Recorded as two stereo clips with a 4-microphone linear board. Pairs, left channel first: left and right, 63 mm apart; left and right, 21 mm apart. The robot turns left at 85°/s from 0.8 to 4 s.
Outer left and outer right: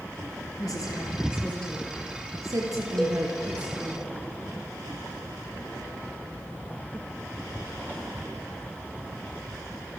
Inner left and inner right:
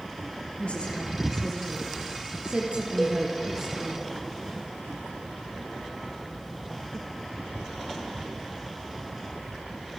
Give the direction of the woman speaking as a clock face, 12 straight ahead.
9 o'clock.